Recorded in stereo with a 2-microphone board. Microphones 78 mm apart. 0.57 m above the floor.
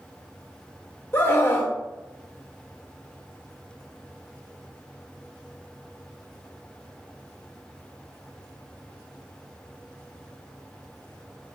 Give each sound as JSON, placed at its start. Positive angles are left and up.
{"t": 1.1, "sound": "a scream", "side_deg": 30, "distance_m": 2.0}